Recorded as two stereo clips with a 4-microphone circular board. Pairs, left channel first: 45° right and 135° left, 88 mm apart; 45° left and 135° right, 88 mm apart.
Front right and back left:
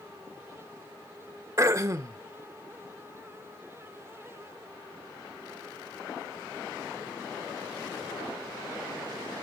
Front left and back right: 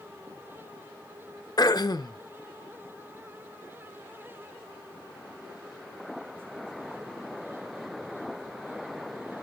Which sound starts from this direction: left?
Throat clearing, at 1.6 s.